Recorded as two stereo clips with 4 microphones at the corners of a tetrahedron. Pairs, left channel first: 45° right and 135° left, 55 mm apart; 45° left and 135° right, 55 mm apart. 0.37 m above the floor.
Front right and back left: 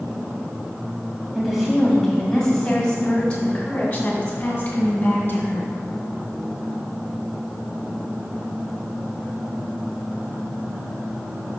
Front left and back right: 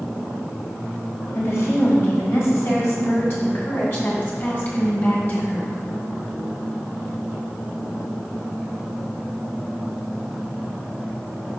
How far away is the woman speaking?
About 1.9 m.